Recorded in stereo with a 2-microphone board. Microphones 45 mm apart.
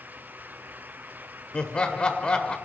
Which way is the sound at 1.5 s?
25° left (ahead or behind).